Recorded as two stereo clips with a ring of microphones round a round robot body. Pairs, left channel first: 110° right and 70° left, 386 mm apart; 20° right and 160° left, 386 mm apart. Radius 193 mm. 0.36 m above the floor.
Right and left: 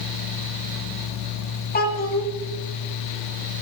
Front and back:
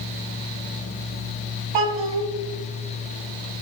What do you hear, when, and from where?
1.7 s a child speaking: straight behind, 1.9 m